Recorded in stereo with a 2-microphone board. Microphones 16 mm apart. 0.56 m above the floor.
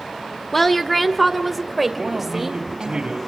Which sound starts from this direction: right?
A man speaking, at 2.0 s.